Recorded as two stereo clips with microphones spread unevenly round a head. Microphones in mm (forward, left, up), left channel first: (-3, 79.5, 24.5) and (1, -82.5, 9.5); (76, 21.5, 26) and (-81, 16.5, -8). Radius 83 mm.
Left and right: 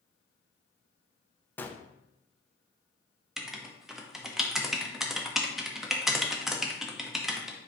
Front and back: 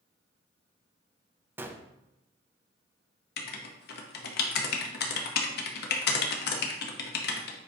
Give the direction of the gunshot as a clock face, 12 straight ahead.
6 o'clock.